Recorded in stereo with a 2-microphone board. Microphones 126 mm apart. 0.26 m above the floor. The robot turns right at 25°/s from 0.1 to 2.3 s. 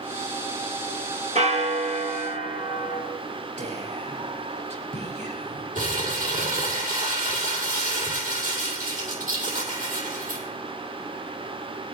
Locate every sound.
1.4 s a bell: 65° right (ahead or behind), 3.5 m; by 3.0 s 45° right (ahead or behind), 3.5 m
3.6 s whispering: 65° right (ahead or behind), 5.5 m
5.8 s crumpling: 80° right, 6.5 m